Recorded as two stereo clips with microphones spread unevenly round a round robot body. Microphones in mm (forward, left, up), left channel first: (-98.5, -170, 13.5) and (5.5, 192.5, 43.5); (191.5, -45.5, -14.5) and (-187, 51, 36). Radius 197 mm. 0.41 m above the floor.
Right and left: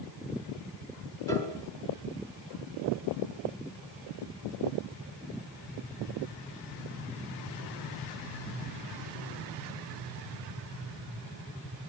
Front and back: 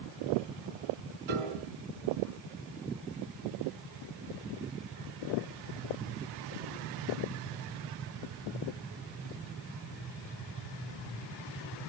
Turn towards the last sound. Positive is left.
turn(degrees=170)